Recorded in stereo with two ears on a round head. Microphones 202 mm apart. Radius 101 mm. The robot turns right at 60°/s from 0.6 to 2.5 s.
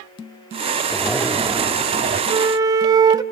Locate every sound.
0.9 s a zipper: 170° left, 1.0 m; by 2.2 s 110° right, 1.0 m
2.3 s a flute: 20° right (ahead or behind), 0.8 m; by 3.2 s 15° right (ahead or behind), 0.8 m